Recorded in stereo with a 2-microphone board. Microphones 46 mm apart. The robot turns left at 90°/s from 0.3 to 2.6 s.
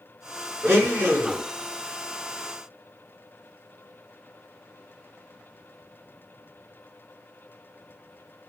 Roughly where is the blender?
Right.